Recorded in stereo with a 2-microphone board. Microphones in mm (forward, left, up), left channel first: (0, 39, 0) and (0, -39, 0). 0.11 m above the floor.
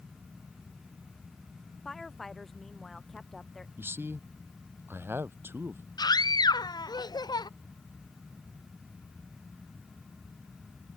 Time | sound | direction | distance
1.9 | a woman speaking | 5° left (ahead or behind) | ?
3.8 | a man speaking | 25° right (ahead or behind) | ?
6.0 | a scream | 60° left (ahead or behind) | ?